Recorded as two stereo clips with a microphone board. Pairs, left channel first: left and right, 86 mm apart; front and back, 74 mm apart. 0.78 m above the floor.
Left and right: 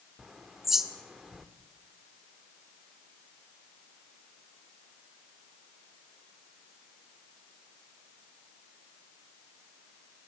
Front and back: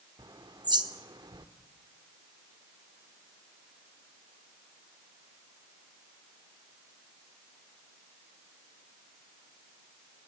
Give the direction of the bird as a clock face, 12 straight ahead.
6 o'clock.